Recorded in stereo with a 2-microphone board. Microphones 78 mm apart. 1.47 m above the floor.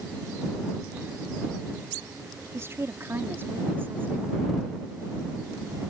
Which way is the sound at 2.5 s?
35° right (ahead or behind).